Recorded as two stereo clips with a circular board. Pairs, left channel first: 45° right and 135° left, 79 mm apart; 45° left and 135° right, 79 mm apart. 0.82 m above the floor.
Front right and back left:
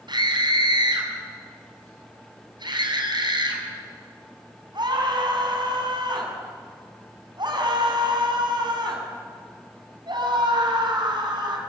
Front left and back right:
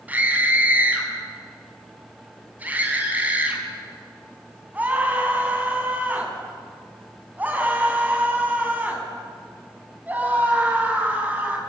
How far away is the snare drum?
No snare drum in this recording.